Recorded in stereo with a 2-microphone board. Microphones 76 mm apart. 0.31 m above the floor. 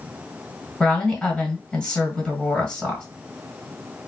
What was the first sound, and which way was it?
A woman speaking, 10° left (ahead or behind).